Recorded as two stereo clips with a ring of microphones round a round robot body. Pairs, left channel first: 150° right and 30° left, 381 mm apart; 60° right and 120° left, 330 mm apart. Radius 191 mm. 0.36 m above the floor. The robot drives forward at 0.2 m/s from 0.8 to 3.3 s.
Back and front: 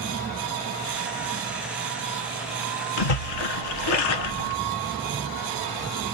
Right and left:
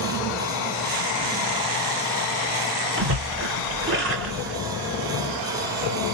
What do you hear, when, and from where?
3.0 s a splash: straight behind, 0.9 m